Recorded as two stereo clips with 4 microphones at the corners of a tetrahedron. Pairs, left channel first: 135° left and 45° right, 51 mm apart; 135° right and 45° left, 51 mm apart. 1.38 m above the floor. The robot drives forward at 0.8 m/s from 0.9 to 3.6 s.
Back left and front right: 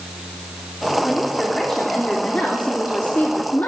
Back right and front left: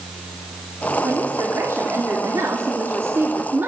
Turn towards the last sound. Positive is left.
turn(degrees=85)